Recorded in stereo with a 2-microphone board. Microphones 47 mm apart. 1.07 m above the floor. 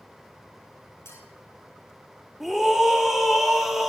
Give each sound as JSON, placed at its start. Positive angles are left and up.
{"t": 1.1, "sound": "a clink", "side_deg": 75, "distance_m": 9.5}
{"t": 2.4, "sound": "a scream", "side_deg": -5, "distance_m": 2.5}